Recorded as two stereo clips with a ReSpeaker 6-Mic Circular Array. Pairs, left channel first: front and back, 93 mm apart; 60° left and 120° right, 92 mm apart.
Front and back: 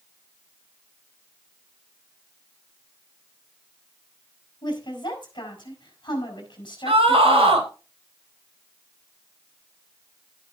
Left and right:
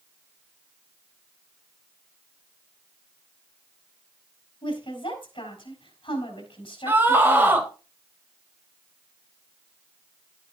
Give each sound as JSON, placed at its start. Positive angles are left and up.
{"t": 4.6, "sound": "a woman speaking", "azimuth_deg": 40, "distance_m": 4.5}
{"t": 6.9, "sound": "a scream", "azimuth_deg": 170, "distance_m": 3.5}